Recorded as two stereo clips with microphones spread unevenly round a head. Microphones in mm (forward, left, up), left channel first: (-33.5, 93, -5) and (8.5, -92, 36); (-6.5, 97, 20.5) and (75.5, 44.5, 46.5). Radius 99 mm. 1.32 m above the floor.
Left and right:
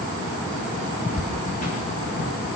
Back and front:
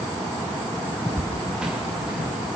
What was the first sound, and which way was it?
Footsteps, 50° left.